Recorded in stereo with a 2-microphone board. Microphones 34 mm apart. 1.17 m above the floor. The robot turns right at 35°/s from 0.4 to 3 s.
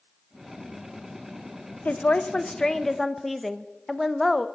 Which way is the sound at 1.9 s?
135° left.